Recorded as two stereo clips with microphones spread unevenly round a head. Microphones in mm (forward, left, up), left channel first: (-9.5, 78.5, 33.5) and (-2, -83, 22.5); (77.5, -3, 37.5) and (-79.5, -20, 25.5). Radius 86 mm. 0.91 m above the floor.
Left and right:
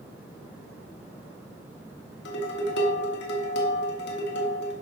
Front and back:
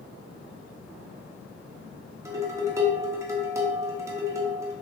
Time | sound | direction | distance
2.2 | dishes clattering | 115° left | 1.4 m